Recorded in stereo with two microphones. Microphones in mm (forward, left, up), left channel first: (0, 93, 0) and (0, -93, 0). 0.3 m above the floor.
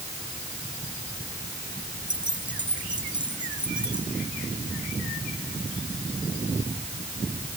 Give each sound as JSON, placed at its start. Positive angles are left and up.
{"t": 2.1, "sound": "keys jangling", "side_deg": -25}